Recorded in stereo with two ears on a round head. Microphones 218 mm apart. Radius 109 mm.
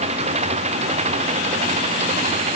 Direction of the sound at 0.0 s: 25° right (ahead or behind).